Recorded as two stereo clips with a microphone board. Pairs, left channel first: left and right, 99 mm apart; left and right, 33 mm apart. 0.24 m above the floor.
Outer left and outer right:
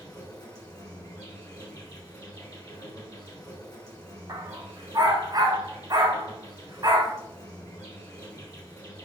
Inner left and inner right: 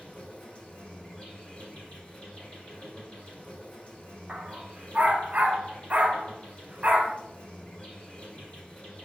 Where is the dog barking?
45° right (ahead or behind), 0.7 m.